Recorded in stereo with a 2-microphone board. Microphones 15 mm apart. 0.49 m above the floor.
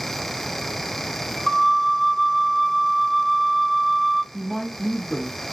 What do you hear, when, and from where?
1.5 s a flute: 20° left (ahead or behind), 1.1 m
4.3 s a woman speaking: 20° left (ahead or behind), 1.0 m